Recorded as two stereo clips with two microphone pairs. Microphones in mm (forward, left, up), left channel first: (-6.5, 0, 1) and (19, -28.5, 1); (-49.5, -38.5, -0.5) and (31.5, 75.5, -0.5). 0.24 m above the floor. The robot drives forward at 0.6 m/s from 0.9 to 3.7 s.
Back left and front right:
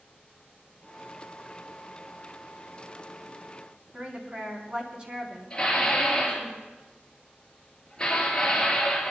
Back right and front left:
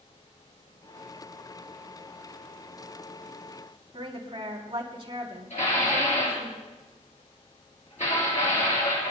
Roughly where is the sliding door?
No sliding door in this recording.